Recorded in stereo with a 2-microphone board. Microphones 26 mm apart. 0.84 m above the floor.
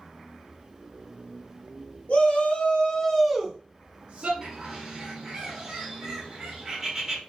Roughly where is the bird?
Right.